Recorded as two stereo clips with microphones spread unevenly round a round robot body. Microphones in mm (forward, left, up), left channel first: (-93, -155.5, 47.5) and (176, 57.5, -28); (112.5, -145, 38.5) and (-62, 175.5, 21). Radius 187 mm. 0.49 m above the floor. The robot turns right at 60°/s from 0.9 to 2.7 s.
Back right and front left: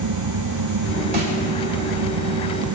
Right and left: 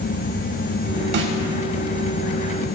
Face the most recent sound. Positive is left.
turn(degrees=170)